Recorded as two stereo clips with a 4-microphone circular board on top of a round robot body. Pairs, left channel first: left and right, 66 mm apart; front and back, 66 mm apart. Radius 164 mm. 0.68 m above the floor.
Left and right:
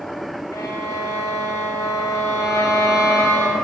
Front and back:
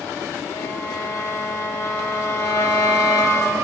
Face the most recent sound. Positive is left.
turn(degrees=50)